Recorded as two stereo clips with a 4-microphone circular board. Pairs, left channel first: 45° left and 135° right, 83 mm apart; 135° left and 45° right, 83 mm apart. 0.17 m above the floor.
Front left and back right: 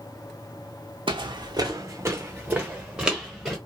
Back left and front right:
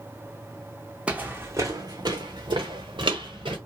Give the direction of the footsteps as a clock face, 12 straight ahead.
4 o'clock.